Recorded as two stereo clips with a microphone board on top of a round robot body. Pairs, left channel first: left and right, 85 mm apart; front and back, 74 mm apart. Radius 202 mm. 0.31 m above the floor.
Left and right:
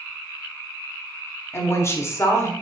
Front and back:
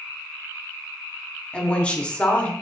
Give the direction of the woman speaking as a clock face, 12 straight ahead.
10 o'clock.